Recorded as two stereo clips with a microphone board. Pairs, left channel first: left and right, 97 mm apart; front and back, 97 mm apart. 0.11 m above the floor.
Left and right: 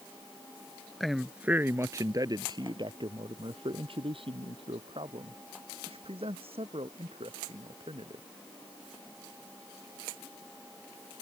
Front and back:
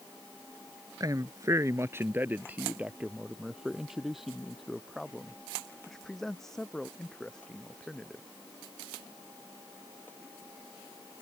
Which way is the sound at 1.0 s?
175° left.